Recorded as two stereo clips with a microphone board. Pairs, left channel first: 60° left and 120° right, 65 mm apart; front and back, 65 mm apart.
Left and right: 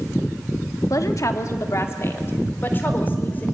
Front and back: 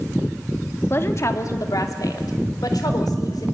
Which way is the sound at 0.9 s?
45° left.